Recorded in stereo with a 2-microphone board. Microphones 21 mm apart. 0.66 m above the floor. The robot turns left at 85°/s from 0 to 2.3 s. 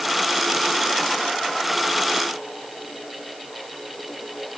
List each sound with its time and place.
Only background noise.